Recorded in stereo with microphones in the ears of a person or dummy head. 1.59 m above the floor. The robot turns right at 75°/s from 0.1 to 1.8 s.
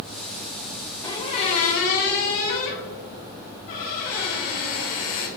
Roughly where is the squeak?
Ahead left.